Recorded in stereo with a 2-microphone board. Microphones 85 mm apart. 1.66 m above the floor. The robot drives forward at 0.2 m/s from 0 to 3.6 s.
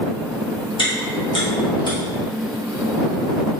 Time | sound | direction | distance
0.8 | chewing | 75° left (ahead or behind) | 1.7 m